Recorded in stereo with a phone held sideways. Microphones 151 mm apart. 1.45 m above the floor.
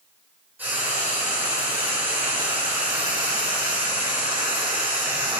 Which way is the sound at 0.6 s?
10° right (ahead or behind).